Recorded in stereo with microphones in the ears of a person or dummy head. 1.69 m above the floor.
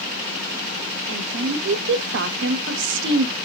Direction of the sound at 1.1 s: 70° right (ahead or behind).